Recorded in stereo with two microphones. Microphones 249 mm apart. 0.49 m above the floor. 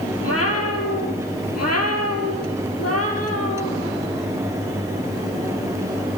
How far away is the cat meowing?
About 2.5 m.